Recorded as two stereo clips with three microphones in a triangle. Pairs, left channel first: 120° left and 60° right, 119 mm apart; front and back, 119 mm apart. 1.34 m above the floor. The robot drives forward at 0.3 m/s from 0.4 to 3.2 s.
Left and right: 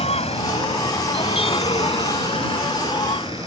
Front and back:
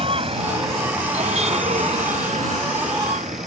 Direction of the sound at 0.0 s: 145° left.